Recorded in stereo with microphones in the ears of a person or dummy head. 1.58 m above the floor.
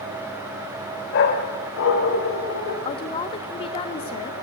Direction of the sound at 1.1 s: 65° left (ahead or behind).